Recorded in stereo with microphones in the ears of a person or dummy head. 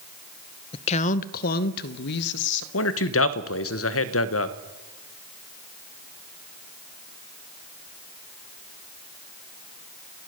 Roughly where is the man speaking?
Left.